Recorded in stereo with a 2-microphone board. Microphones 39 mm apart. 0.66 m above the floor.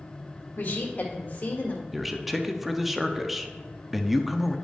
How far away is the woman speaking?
About 1.9 m.